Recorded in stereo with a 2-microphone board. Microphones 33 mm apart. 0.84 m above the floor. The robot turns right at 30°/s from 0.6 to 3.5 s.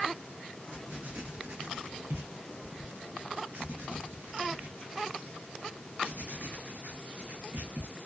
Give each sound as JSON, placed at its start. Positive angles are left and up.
{"t": 0.7, "sound": "writing", "side_deg": -35, "distance_m": 1.0}